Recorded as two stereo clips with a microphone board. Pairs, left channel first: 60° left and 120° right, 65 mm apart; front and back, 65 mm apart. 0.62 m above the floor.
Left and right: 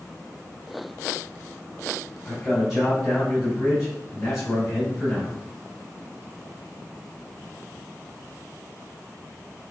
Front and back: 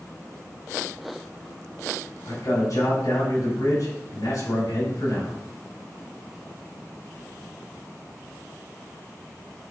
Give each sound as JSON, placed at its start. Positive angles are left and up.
{"t": 2.2, "sound": "a man speaking", "azimuth_deg": -35, "distance_m": 4.5}